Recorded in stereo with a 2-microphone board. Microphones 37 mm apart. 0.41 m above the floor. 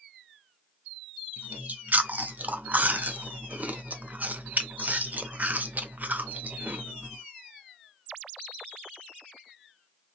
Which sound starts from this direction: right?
Chewing, at 1.4 s.